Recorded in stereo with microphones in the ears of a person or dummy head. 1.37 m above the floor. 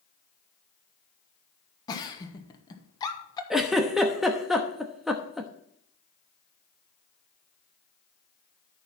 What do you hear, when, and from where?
1.9 s a giggle: 20° left (ahead or behind), 1.1 m
3.5 s a giggle: centre (ahead or behind), 0.9 m